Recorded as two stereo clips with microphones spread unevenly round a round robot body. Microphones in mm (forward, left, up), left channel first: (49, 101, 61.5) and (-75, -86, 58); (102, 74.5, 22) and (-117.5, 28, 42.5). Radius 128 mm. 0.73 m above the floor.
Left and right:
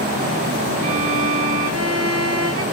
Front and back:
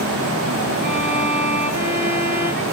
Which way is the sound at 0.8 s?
105° right.